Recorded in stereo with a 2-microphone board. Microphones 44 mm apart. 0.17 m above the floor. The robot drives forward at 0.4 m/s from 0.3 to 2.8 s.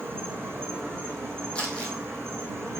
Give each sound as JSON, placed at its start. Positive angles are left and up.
{"t": 0.0, "sound": "an insect", "side_deg": -50, "distance_m": 3.5}
{"t": 1.6, "sound": "crumpling", "side_deg": 25, "distance_m": 2.5}